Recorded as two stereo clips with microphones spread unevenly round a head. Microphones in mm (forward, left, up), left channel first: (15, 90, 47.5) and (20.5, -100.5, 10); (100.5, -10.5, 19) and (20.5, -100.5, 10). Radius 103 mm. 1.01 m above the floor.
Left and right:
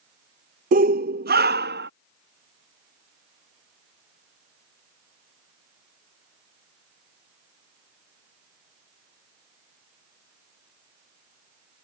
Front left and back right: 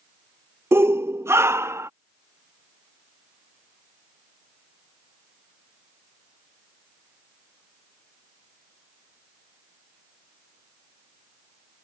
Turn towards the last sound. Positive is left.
turn(degrees=-65)